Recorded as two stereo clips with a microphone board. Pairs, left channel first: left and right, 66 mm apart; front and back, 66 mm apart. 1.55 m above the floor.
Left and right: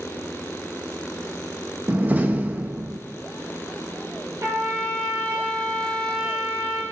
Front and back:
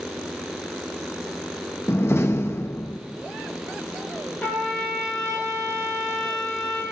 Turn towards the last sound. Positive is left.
turn(degrees=-60)